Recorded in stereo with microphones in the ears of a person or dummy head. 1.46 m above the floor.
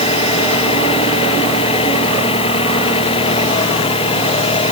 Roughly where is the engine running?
Left.